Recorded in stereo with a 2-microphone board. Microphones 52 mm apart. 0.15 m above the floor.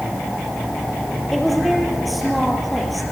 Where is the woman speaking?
5° right (ahead or behind), 4 m.